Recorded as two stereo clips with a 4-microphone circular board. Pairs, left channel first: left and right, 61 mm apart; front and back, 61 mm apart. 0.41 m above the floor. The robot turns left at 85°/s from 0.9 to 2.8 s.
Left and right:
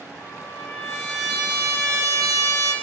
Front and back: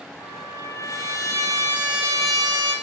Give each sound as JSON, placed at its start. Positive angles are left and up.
{"t": 0.2, "sound": "a trumpet", "azimuth_deg": 30, "distance_m": 5.5}